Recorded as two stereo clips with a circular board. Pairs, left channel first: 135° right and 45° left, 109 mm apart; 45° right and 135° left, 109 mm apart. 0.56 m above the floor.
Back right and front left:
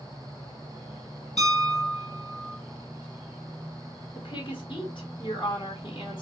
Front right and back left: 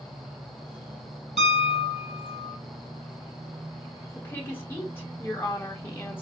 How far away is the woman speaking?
About 1.3 m.